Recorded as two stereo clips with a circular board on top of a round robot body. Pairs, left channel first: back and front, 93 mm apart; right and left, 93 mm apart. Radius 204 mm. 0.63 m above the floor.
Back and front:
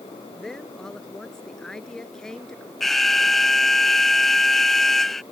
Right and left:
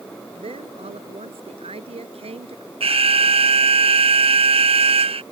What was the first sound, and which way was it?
A woman speaking, 95° left.